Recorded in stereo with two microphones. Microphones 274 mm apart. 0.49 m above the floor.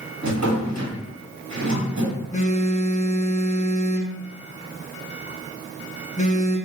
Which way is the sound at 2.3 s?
25° left (ahead or behind).